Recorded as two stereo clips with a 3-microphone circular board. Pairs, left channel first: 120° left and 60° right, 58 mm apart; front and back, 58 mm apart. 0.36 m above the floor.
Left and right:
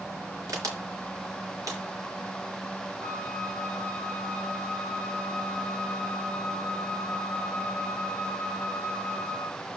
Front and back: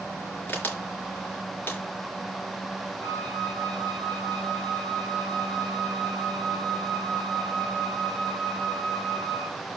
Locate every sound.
0.5 s a crack: 60° right, 3.5 m
3.0 s a flute: 70° right, 5 m